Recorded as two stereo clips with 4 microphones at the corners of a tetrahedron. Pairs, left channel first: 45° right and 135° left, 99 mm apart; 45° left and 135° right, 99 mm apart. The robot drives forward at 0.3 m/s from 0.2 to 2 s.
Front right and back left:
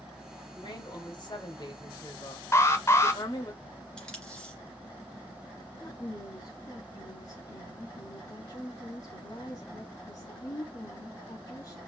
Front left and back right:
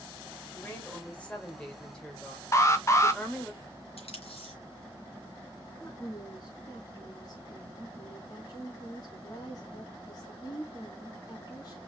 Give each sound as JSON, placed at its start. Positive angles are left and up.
{"t": 0.5, "sound": "a woman speaking", "azimuth_deg": -25, "distance_m": 2.0}
{"t": 2.5, "sound": "an alarm", "azimuth_deg": 0, "distance_m": 0.8}
{"t": 4.0, "sound": "tape being pulled", "azimuth_deg": 40, "distance_m": 2.5}
{"t": 5.8, "sound": "a woman speaking", "azimuth_deg": 0, "distance_m": 2.0}